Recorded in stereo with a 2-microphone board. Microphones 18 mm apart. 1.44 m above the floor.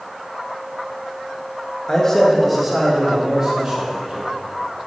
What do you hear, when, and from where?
1.9 s a man speaking: 30° left (ahead or behind), 1.5 m; by 4.2 s 40° right (ahead or behind), 3.5 m